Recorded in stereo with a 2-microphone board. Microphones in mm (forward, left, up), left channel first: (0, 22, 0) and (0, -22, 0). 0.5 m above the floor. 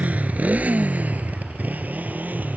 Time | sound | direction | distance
0.0 | a motorcycle | 30° right (ahead or behind) | ?